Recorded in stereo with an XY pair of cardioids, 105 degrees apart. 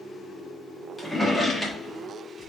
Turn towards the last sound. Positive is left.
turn(degrees=15)